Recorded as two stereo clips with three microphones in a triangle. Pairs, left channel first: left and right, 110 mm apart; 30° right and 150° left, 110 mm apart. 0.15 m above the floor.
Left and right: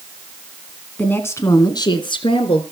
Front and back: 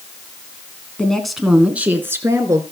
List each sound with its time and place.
1.0 s a woman speaking: 35° left, 1.6 m; by 2.6 s 95° left, 2.5 m